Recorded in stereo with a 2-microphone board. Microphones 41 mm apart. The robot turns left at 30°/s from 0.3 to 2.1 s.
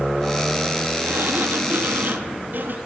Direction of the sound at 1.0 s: 95° right.